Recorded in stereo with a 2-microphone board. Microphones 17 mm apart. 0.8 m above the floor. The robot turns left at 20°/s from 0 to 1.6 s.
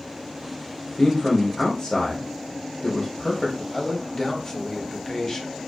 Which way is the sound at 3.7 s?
30° left (ahead or behind).